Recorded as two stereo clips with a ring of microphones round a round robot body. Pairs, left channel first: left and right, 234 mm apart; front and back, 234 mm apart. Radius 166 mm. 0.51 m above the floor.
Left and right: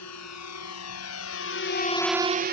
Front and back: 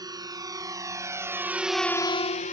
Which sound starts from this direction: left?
A drone, at 0.0 s.